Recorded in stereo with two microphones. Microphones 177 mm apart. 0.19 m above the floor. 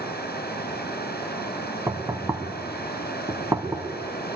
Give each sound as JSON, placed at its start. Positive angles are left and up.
{"t": 0.0, "sound": "running water", "side_deg": 65, "distance_m": 2.5}
{"t": 1.9, "sound": "knocking", "side_deg": -20, "distance_m": 1.3}